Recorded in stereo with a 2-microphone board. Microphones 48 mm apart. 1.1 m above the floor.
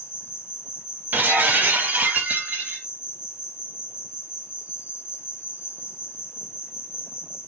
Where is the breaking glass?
40° right (ahead or behind), 0.6 m.